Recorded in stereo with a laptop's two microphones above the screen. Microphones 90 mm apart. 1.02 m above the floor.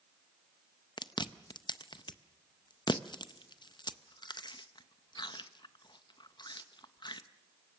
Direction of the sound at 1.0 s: 55° left (ahead or behind).